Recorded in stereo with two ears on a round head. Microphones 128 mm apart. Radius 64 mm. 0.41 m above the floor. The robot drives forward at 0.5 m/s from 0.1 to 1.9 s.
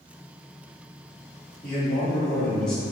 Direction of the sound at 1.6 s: 5° left (ahead or behind).